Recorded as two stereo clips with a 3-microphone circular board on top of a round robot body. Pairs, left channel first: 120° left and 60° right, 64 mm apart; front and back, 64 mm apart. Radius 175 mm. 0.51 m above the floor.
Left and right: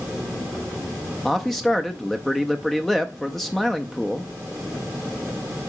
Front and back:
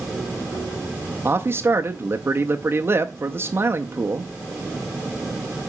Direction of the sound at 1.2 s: 155° right.